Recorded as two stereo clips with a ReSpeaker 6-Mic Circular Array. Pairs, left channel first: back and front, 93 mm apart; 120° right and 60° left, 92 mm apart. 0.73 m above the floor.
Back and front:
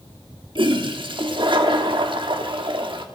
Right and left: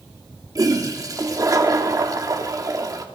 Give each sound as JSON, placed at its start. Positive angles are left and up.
{"t": 0.6, "sound": "a toilet flushing", "azimuth_deg": 15, "distance_m": 1.3}